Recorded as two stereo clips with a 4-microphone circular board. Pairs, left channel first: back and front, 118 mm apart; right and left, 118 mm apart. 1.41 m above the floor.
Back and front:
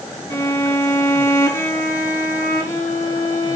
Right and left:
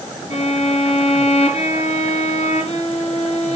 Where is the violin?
115° right, 4.5 m.